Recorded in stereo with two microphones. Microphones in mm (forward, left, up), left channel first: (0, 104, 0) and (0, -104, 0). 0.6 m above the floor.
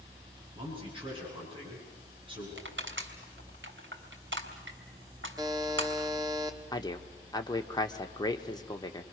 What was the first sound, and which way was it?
A man speaking, 25° right (ahead or behind).